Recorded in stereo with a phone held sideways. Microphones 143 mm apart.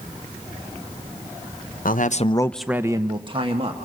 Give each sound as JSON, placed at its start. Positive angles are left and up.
{"t": 1.9, "sound": "a man speaking", "side_deg": 75, "distance_m": 0.9}